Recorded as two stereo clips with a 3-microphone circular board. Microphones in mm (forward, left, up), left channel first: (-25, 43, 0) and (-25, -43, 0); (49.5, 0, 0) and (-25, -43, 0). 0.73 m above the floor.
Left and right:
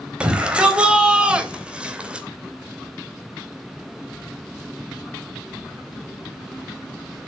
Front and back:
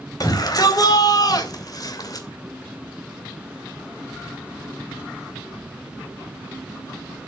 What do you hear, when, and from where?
0.2 s a shout: 10° right, 3.5 m